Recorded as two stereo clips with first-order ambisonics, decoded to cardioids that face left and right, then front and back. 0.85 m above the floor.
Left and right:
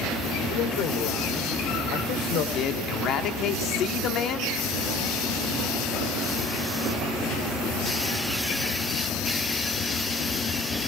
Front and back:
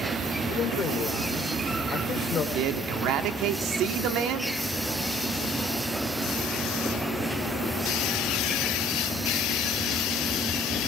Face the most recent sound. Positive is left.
turn(degrees=140)